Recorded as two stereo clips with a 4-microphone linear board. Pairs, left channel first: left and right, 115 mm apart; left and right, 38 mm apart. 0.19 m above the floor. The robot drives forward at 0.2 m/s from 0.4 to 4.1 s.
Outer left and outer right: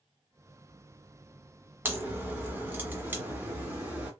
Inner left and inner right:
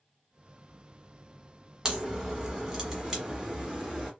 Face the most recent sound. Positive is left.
turn(degrees=-15)  # may be behind; listen again after turning